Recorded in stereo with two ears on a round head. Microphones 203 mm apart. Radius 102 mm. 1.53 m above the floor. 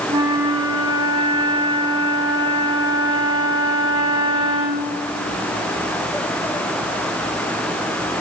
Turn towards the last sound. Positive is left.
turn(degrees=-20)  # may be behind; listen again after turning